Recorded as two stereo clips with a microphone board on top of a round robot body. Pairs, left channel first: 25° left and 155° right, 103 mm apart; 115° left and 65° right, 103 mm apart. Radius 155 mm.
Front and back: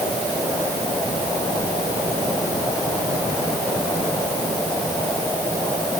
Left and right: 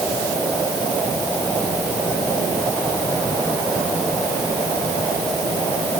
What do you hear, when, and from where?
Only background noise.